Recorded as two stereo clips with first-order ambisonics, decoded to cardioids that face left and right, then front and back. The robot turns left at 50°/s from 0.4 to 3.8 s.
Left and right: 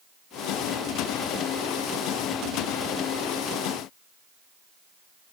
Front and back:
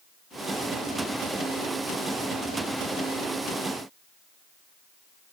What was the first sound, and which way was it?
Only background noise.